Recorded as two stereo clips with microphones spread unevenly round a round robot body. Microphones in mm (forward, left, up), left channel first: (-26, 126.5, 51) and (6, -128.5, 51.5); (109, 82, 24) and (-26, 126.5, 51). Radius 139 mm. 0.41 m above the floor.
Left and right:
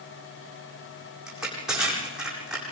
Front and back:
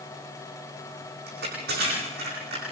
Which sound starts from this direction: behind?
Crushing, at 1.3 s.